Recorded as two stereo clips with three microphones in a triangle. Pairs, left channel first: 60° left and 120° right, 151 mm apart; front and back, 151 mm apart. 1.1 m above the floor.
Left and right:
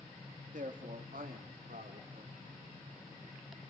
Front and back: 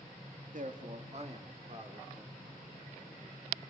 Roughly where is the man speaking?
Behind right.